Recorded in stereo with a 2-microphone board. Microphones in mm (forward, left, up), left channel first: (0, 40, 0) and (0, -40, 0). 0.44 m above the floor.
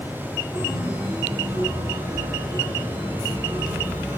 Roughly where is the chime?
Right.